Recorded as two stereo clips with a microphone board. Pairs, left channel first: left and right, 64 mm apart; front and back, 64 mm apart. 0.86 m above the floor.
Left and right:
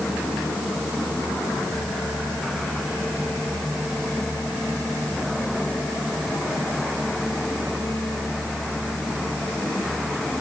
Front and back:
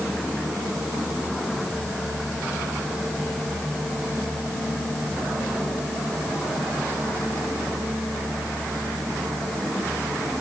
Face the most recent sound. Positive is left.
No sound to turn to.